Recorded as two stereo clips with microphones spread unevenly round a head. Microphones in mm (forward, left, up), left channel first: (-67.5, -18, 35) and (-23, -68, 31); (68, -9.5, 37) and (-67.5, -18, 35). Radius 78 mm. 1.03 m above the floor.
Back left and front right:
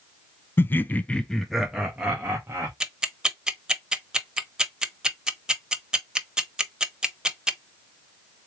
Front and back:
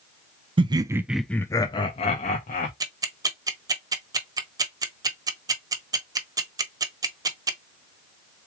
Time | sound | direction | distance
0.6 | laughter | 170° left | 0.6 m
2.8 | ticking | 125° right | 0.9 m